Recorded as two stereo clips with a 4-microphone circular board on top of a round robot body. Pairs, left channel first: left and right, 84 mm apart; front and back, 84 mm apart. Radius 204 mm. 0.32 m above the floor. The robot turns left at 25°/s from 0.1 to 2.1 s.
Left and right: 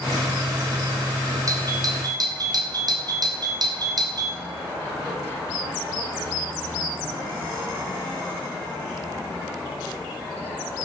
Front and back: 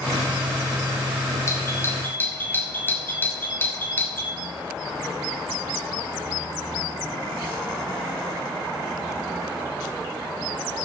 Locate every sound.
1.5 s a doorbell: 50° right, 3 m; by 4.4 s 65° right, 3 m